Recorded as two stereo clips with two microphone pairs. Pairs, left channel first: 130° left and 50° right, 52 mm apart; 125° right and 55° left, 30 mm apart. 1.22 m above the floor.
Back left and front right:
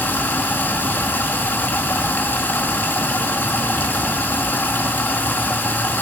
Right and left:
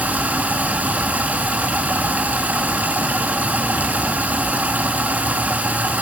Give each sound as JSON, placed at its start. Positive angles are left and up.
{"t": 0.0, "sound": "running water", "azimuth_deg": 75, "distance_m": 1.9}